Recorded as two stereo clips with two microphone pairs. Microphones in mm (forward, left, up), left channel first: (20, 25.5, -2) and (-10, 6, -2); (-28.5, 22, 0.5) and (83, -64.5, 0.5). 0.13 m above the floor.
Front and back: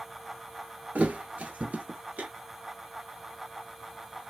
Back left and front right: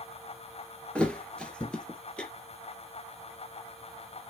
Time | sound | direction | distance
0.9 | a thud | 135° right | 0.7 m